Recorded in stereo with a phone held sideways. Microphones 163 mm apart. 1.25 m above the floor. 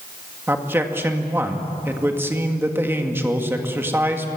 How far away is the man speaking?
About 1.9 m.